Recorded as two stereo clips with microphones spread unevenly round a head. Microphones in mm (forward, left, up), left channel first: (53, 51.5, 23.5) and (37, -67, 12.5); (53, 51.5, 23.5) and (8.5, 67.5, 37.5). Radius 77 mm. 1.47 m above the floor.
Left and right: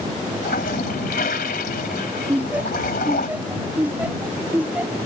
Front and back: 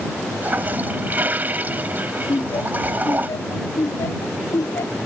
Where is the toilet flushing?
115° left.